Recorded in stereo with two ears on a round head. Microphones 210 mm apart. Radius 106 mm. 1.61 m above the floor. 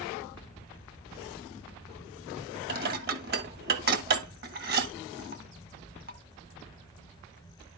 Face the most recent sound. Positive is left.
turn(degrees=-45)  # may be behind; listen again after turning